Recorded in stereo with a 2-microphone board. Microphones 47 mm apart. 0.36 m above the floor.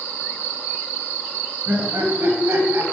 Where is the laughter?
45° right (ahead or behind), 1.8 m; by 2.8 s 60° right (ahead or behind), 2.5 m.